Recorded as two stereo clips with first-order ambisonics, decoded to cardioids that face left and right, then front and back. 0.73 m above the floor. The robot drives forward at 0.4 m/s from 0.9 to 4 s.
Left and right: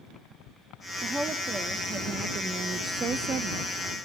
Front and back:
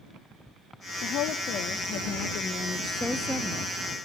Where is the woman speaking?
15° right, 1.1 m; by 3.7 s 125° right, 0.6 m.